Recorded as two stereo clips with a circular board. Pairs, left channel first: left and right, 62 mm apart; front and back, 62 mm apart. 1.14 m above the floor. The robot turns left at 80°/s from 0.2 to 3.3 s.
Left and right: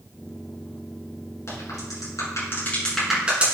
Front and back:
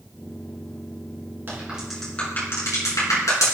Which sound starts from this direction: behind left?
A crack, at 1.5 s.